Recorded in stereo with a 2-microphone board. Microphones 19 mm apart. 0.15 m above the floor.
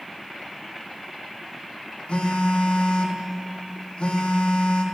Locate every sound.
2.1 s a phone buzzing: 55° left (ahead or behind), 2.5 m